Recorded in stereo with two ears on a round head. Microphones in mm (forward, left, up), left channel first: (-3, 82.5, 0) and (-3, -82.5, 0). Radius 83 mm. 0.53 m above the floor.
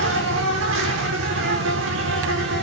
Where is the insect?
80° right, 3.5 m.